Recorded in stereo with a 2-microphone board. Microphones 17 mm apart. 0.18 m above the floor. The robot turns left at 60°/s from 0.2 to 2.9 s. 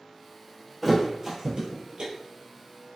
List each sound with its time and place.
0.8 s a thud: 5° right (ahead or behind), 1.1 m; by 2.1 s 75° right (ahead or behind), 1.1 m